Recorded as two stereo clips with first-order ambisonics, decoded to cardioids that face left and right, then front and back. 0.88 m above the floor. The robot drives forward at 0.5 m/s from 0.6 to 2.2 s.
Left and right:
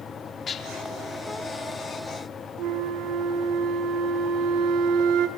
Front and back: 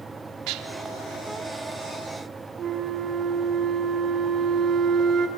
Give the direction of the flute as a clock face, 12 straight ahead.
4 o'clock.